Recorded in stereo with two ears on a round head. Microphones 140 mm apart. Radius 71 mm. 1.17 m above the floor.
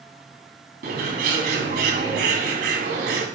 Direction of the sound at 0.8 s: 70° right (ahead or behind).